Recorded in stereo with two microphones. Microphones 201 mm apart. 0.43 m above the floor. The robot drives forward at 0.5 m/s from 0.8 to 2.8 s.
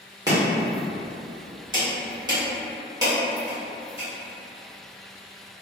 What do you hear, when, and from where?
0.3 s chopping: 20° right (ahead or behind), 1.3 m